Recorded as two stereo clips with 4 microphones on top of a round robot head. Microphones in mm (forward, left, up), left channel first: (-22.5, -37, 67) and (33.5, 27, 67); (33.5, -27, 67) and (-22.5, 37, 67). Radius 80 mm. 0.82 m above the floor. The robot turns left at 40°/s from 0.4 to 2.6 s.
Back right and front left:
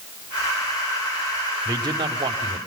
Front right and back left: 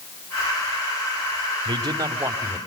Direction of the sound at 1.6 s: 95° left.